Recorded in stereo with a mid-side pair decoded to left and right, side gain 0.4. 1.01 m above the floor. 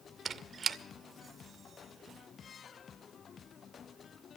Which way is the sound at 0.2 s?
55° right.